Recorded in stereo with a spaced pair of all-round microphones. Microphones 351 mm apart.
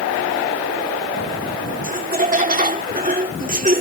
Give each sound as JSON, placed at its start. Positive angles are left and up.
{"t": 1.8, "sound": "laughter", "side_deg": -25}